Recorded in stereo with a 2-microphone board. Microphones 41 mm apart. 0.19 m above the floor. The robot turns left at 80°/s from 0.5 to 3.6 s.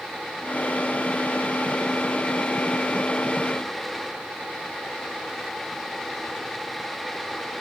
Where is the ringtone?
I don't hear a ringtone.